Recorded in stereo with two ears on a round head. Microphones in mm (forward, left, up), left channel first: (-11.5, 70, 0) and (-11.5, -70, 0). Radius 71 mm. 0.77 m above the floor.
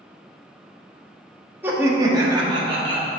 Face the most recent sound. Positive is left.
turn(degrees=-35)  # may be behind; listen again after turning